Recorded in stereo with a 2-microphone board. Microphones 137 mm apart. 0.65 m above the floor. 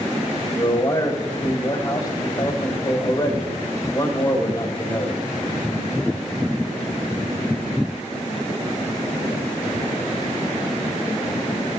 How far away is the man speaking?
About 3 m.